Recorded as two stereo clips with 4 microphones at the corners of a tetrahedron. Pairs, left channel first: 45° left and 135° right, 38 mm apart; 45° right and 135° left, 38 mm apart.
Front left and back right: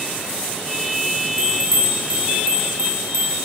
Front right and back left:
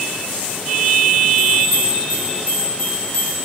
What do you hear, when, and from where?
1.4 s a bell: 90° right, 5.5 m